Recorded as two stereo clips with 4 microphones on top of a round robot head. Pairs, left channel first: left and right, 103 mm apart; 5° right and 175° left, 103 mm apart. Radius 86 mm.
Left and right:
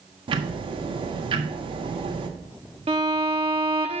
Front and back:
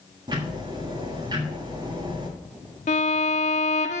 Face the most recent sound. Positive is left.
turn(degrees=-40)